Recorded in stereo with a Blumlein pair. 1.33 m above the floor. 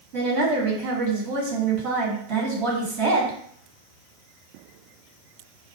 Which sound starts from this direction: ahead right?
A woman speaking, at 0.1 s.